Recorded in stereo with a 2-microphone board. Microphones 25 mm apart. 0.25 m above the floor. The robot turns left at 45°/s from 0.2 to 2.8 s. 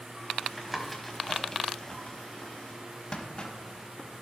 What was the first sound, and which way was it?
Tapping, 5° right (ahead or behind).